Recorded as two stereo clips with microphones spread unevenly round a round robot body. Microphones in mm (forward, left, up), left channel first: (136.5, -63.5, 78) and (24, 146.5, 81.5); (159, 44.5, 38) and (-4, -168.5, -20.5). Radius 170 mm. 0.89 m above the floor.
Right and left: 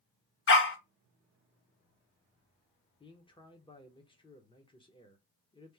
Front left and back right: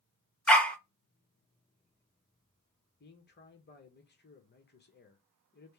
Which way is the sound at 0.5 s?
25° right.